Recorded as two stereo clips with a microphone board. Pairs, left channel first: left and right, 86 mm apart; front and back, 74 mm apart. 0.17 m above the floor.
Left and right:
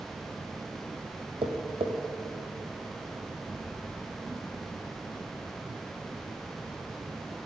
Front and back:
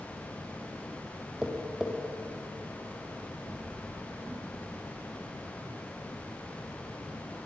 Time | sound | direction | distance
1.4 | tapping | 95° right | 3.5 m